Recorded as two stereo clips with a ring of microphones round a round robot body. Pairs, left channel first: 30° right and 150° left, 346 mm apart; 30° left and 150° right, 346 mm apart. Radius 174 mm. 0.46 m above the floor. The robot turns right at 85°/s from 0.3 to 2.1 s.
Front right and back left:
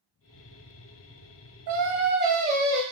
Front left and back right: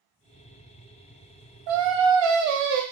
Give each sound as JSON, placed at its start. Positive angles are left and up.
{"t": 1.7, "sound": "singing", "azimuth_deg": 175, "distance_m": 1.0}